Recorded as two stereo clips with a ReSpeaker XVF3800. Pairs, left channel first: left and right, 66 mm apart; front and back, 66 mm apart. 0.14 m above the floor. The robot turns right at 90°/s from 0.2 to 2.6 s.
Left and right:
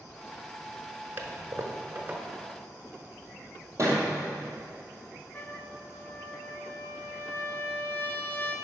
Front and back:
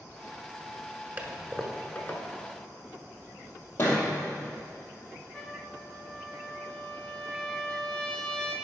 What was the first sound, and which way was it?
A toilet flushing, 130° right.